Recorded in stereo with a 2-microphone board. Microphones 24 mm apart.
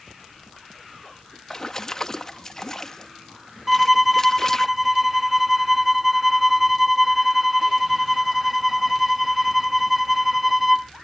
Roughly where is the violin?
Centre.